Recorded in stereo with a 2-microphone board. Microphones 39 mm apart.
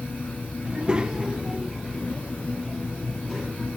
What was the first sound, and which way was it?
A child speaking, 30° right (ahead or behind).